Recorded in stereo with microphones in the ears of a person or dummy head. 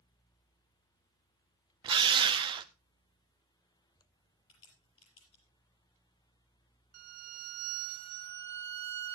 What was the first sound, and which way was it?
A drill, 25° right (ahead or behind).